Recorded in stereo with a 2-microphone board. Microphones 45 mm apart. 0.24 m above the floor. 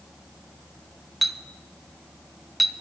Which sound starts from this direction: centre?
A clink, at 1.2 s.